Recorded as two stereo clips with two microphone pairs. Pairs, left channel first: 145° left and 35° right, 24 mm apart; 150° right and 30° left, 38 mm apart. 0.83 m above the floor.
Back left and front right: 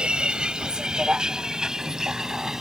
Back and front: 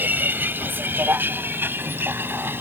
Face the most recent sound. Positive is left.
turn(degrees=25)